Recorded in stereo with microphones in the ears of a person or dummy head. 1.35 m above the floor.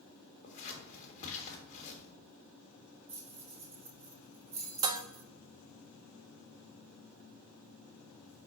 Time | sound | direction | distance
0.4 | scissors | 40° left (ahead or behind) | 1.8 m
3.1 | keys jangling | 10° right (ahead or behind) | 1.9 m
4.8 | dishes clattering | 20° right (ahead or behind) | 0.6 m